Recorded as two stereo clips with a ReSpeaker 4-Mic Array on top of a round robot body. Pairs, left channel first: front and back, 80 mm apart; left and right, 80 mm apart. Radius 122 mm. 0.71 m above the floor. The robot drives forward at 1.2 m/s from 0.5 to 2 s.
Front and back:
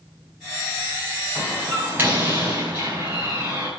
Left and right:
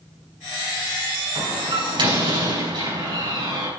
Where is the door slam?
105° right, 5 m; by 3.7 s 115° right, 5.5 m.